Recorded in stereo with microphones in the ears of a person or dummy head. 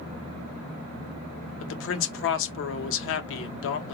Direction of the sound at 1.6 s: 65° left (ahead or behind).